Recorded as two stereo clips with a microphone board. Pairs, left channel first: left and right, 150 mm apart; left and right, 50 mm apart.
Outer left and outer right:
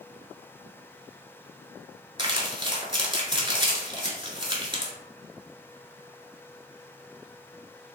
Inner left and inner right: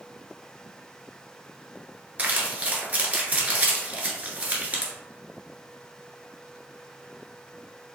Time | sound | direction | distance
2.2 | crumpling | 30° right (ahead or behind) | 0.9 m